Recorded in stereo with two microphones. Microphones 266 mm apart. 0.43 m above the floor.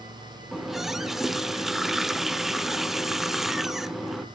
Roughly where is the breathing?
I don't hear breathing.